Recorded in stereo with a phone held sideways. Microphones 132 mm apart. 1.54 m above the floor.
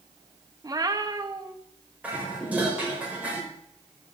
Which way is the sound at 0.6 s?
30° right (ahead or behind).